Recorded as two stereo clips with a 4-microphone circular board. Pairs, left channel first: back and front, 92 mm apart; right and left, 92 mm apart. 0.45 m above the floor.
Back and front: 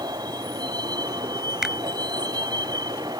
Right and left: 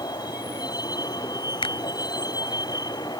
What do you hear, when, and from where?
0.0 s a vehicle: 45° right
1.6 s a finger snap: 85° right